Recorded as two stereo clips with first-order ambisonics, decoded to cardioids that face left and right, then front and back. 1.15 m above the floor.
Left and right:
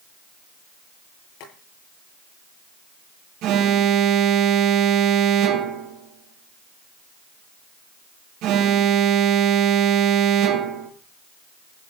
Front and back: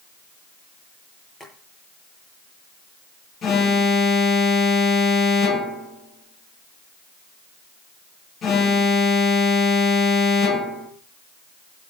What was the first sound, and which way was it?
Boiling, 80° left.